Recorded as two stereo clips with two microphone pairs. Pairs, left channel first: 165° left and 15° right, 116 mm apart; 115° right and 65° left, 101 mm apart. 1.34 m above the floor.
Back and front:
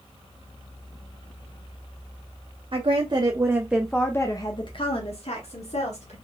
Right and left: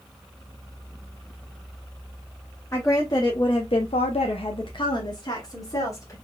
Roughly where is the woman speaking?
Ahead right.